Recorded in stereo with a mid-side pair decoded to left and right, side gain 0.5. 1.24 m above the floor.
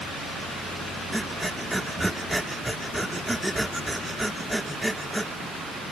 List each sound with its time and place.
1.1 s breathing: 5° right